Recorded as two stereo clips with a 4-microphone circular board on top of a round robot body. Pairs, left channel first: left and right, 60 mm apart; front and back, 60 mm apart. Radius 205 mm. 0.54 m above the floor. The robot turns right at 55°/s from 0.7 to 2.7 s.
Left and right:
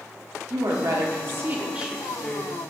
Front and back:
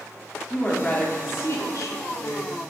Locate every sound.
0.5 s a woman speaking: 80° right, 1.6 m; by 2.5 s 25° left, 1.6 m